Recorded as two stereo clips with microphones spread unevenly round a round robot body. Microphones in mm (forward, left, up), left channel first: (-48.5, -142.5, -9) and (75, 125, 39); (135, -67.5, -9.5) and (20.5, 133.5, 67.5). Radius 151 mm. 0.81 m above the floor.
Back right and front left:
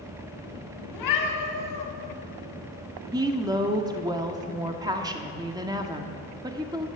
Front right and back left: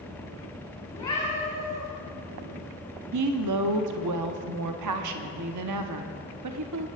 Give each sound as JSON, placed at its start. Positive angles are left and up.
{"t": 0.9, "sound": "a cat meowing", "azimuth_deg": -140, "distance_m": 3.5}
{"t": 3.1, "sound": "a woman speaking", "azimuth_deg": 145, "distance_m": 1.1}